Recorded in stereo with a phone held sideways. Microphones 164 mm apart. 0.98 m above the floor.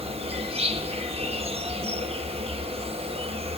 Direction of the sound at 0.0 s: 35° right (ahead or behind).